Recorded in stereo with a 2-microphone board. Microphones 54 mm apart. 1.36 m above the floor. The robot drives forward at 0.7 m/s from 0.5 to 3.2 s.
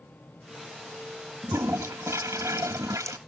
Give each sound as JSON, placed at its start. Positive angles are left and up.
{"t": 1.4, "sound": "a toilet flushing", "side_deg": -60}